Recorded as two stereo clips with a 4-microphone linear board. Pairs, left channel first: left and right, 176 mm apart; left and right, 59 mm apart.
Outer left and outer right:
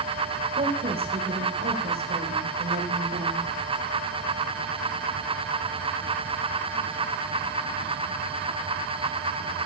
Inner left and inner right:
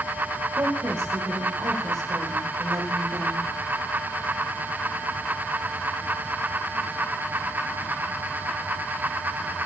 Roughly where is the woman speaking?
Right.